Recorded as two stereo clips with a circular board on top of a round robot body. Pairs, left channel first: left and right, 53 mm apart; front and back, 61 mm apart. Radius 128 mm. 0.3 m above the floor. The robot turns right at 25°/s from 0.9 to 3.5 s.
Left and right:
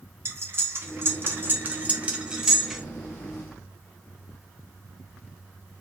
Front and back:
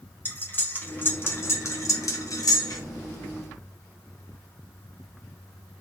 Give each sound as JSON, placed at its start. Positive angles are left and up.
{"t": 0.2, "sound": "cutlery clinking", "azimuth_deg": -55, "distance_m": 1.0}